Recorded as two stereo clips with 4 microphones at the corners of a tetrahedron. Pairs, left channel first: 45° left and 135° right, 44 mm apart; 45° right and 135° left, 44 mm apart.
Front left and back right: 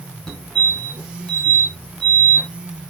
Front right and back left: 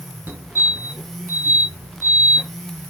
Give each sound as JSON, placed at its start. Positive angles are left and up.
{"t": 0.3, "sound": "a fire alarm", "azimuth_deg": 115, "distance_m": 4.0}